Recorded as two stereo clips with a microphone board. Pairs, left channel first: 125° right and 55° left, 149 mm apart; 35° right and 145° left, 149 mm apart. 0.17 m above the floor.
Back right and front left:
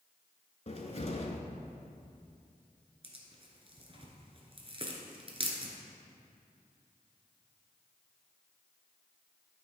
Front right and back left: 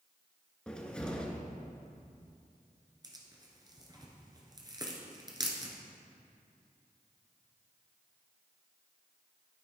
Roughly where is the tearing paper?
Left.